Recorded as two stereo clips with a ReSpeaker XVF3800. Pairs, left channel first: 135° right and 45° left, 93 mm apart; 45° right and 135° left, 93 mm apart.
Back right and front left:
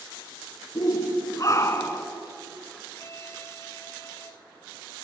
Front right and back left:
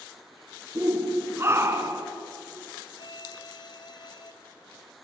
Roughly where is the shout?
Behind.